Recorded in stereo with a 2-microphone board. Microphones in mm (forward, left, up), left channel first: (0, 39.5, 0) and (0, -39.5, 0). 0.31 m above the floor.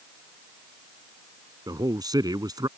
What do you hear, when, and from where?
1.7 s a man speaking: 55° right (ahead or behind)